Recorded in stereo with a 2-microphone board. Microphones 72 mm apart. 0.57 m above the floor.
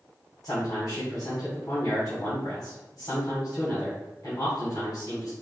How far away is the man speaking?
About 2 m.